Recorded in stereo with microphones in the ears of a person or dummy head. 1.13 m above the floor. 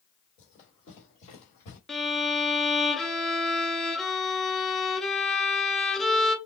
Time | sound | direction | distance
0.4 | running footsteps | 40° left (ahead or behind) | 1.8 m
1.9 | a violin | centre (ahead or behind) | 0.6 m